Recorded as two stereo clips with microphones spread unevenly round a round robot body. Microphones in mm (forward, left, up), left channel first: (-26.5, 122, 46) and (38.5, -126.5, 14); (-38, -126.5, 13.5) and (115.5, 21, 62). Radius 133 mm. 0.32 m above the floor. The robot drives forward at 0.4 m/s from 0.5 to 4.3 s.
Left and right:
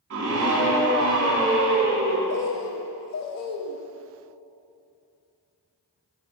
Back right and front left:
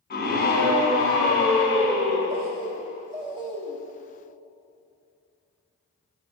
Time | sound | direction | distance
0.1 | a scream | 110° right | 1.7 m
2.3 | a bird | 90° left | 1.0 m